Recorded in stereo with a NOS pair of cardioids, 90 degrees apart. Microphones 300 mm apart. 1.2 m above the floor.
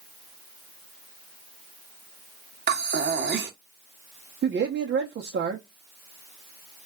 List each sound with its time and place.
2.7 s breathing: 35° right, 1.0 m
4.4 s a man speaking: 40° right, 0.9 m